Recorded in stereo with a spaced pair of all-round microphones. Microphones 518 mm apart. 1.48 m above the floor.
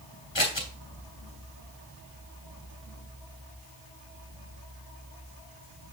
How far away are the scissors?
About 2.5 m.